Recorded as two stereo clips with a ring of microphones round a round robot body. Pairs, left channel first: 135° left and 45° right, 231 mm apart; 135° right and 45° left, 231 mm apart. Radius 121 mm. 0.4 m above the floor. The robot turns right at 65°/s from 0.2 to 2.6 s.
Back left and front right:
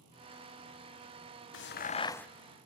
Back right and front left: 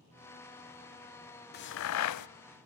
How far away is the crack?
About 0.6 m.